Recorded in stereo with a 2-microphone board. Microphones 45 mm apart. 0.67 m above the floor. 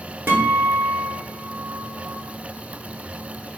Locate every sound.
0.3 s a guitar: 55° right (ahead or behind), 1.1 m